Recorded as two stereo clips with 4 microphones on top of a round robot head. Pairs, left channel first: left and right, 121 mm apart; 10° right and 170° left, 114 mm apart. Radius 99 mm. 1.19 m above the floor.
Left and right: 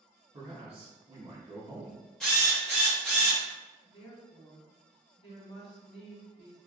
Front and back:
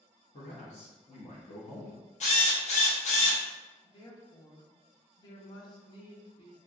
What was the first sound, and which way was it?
A man speaking, 45° right.